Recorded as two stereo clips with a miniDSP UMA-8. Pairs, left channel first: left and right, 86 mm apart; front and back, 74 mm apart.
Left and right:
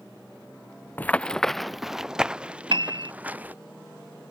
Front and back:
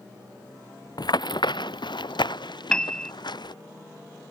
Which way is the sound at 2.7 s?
80° right.